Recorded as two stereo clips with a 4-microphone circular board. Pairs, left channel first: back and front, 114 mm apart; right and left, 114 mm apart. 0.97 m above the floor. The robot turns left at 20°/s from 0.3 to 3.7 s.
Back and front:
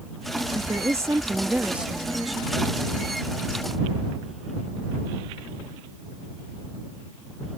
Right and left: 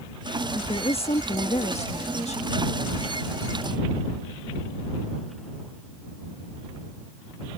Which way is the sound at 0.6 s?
55° right.